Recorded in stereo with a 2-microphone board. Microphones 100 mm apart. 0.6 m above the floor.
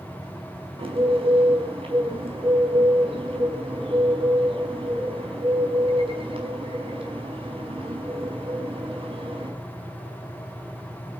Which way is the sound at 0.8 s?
60° right (ahead or behind).